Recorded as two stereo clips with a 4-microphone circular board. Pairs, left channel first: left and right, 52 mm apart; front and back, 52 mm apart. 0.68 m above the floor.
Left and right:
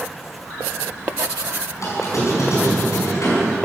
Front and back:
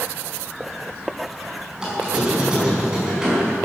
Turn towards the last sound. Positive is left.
turn(degrees=105)